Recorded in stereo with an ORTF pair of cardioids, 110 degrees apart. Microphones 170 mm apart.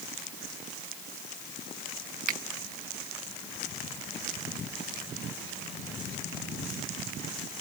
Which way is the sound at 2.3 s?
50° right.